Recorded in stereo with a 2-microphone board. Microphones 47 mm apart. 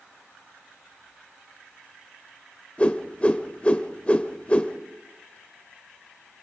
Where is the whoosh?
25° left (ahead or behind), 1.4 m.